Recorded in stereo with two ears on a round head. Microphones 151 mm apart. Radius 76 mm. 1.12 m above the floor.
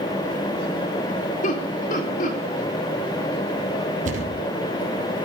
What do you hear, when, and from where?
1.4 s laughter: 55° left (ahead or behind), 4 m
4.0 s a thud: 50° right (ahead or behind), 4 m